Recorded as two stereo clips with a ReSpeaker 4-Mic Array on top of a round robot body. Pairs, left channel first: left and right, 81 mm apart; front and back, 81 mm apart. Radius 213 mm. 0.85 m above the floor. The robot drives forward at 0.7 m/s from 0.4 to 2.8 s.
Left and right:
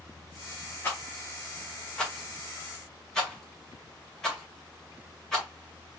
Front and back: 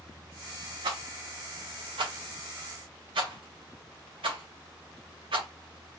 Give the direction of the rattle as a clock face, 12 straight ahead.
7 o'clock.